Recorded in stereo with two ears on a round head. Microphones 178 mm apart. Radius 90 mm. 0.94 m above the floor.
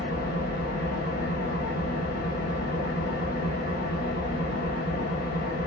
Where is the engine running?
50° left (ahead or behind), 1.0 m.